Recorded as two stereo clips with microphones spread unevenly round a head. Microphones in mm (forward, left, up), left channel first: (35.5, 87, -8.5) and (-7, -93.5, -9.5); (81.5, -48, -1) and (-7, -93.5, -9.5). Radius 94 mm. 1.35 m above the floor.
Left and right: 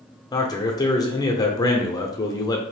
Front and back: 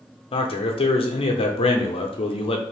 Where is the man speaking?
10° left, 0.7 m.